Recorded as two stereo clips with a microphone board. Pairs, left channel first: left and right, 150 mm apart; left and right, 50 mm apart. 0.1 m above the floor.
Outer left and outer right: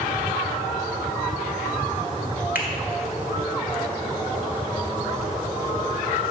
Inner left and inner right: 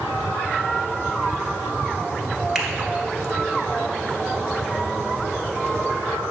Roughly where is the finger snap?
Centre.